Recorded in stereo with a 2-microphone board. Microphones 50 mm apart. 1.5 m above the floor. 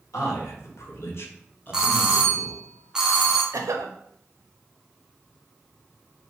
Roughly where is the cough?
Right.